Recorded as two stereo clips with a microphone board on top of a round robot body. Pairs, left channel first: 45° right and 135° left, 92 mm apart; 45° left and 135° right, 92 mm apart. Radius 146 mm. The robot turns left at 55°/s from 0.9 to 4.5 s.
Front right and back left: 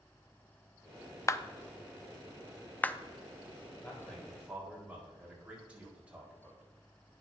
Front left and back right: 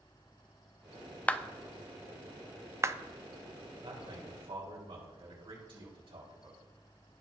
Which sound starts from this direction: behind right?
A man speaking, at 3.8 s.